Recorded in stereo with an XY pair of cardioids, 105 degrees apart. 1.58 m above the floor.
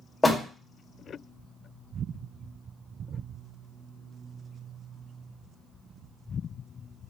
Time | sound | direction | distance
0.2 | a door slam | 20° left | 1.0 m